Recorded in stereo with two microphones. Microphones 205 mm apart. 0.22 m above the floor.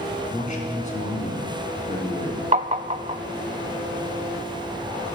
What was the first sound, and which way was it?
A man speaking, 40° left (ahead or behind).